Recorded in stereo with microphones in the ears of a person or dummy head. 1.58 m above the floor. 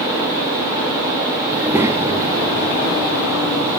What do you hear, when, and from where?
1.5 s a child speaking: 10° right (ahead or behind), 2 m; by 3.8 s 35° right (ahead or behind), 4 m